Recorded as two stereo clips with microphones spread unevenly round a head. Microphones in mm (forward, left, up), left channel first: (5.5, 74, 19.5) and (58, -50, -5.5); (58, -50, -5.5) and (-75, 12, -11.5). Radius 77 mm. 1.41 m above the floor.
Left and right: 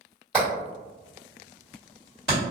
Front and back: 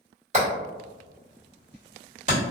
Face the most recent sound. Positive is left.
turn(degrees=-165)